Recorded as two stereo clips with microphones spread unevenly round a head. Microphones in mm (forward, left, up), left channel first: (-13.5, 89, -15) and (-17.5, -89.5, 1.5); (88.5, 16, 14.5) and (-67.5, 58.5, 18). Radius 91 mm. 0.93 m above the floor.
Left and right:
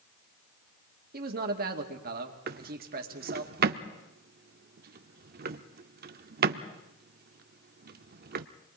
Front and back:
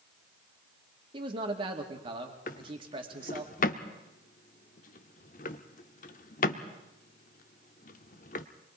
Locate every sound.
1.1 s a man speaking: 130° right, 2 m
2.5 s a drawer: 65° right, 0.8 m